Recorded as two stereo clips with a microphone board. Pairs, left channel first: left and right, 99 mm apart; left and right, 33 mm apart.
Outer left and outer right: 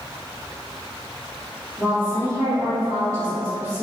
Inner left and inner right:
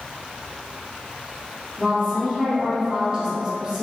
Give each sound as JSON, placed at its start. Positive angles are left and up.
{"t": 1.8, "sound": "a woman speaking", "side_deg": -35, "distance_m": 1.5}